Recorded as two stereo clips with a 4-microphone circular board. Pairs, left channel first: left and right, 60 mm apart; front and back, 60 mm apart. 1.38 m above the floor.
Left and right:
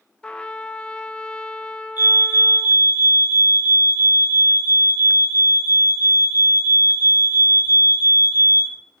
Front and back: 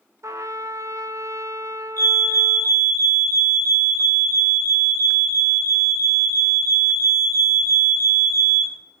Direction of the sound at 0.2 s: 165° left.